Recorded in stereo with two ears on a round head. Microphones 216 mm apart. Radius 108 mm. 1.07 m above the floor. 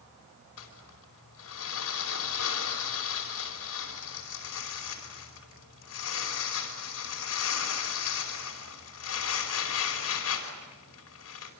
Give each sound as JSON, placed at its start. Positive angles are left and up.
{"t": 0.6, "sound": "crumpling", "side_deg": 70, "distance_m": 5.0}